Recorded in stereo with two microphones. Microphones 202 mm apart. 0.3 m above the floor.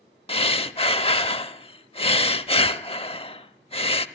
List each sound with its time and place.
0.3 s breathing: 30° left (ahead or behind), 0.7 m